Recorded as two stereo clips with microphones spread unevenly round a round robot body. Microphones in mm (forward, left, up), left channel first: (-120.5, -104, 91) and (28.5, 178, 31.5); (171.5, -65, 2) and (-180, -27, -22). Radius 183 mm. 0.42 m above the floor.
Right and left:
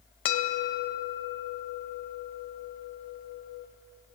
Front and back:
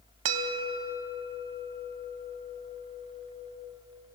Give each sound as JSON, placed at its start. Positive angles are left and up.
{"t": 0.2, "sound": "a bell", "azimuth_deg": -155, "distance_m": 0.9}